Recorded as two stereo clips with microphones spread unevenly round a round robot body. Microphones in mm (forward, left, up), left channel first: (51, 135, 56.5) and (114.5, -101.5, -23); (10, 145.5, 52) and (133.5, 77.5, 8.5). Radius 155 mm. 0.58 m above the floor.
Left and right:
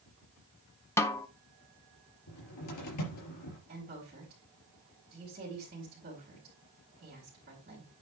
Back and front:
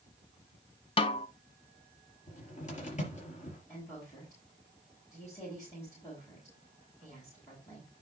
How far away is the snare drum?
About 0.6 m.